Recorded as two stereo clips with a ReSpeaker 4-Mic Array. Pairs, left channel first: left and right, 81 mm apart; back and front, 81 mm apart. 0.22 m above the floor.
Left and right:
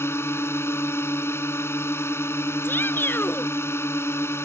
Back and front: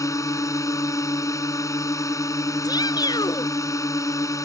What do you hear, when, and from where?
0.0 s a drone: 140° left
2.6 s a shout: 150° left